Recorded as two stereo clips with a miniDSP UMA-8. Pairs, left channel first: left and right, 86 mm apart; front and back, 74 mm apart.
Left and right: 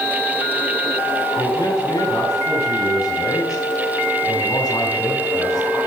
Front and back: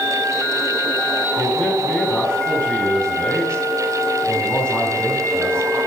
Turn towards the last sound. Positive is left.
turn(degrees=75)